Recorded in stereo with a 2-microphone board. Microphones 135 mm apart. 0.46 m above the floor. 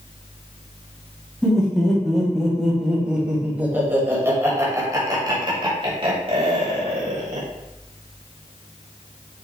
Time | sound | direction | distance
1.4 | laughter | 5° left (ahead or behind) | 4 m